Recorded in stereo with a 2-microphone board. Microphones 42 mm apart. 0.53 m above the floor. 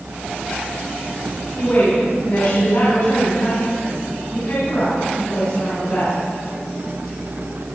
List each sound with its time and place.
1.6 s a woman speaking: 70° left (ahead or behind), 3.5 m; by 6.1 s 80° left, 5.5 m